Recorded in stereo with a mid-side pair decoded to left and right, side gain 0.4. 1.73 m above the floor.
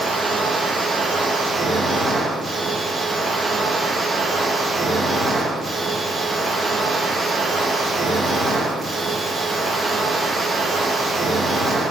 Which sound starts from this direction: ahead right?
A machine running, at 0.0 s.